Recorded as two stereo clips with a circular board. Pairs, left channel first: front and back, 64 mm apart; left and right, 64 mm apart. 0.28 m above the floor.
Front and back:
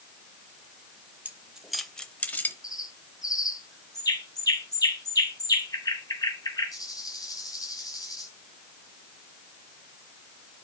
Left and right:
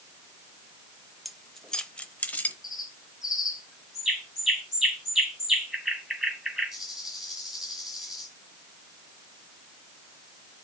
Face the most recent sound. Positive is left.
turn(degrees=-5)